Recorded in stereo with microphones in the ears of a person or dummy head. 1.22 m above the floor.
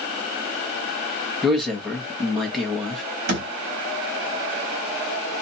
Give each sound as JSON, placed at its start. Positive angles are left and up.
{"t": 1.4, "sound": "a man speaking", "side_deg": 0, "distance_m": 1.2}
{"t": 3.3, "sound": "a thud", "side_deg": -55, "distance_m": 1.3}